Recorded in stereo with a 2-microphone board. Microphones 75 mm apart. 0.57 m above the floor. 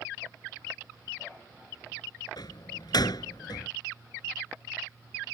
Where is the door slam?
65° left (ahead or behind).